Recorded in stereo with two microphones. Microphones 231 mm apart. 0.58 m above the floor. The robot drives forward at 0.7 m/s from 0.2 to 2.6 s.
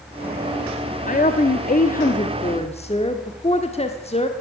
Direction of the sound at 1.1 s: 35° left (ahead or behind).